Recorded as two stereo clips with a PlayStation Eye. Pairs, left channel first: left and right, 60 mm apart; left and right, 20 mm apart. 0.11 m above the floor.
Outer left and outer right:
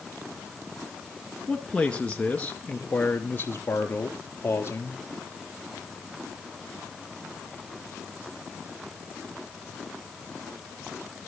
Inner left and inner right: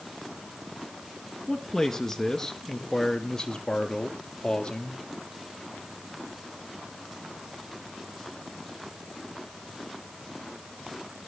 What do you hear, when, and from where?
1.5 s a man speaking: 10° left (ahead or behind), 1.6 m; by 5.0 s 40° left (ahead or behind), 3 m